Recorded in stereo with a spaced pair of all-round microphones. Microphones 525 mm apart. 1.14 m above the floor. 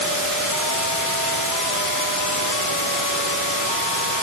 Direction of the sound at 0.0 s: 85° left.